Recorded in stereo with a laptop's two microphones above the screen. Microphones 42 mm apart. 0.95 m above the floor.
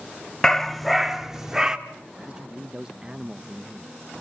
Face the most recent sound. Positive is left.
turn(degrees=-15)  # may be behind; listen again after turning